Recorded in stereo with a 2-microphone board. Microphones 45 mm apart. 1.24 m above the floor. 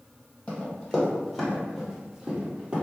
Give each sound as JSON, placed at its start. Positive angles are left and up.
{"t": 0.5, "sound": "running footsteps", "side_deg": 20, "distance_m": 1.5}